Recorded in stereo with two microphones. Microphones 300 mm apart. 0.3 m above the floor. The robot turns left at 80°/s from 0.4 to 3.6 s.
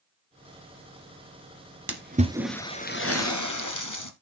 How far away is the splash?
About 1.5 m.